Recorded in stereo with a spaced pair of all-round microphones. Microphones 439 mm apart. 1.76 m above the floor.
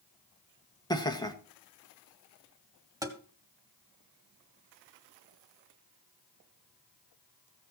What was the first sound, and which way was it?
Laughter, 10° left (ahead or behind).